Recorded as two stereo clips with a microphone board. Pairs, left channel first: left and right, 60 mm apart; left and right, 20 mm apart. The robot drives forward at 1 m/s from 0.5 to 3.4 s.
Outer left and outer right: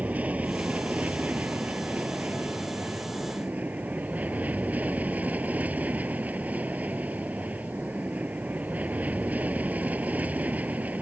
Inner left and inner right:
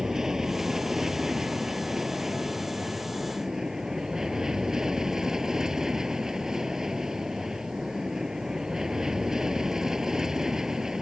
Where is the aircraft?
25° right (ahead or behind).